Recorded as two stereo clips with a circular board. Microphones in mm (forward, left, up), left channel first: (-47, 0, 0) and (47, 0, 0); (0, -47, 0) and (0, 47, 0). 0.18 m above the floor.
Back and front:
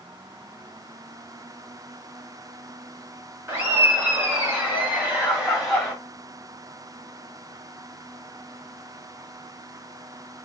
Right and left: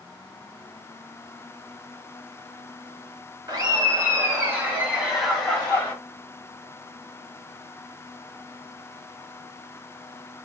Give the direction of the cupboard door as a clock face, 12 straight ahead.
No cupboard door in this recording.